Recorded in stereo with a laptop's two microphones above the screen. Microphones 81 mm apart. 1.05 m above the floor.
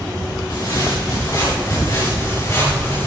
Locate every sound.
0.5 s footsteps: 55° left (ahead or behind), 7.5 m; by 3.1 s 30° left (ahead or behind), 7 m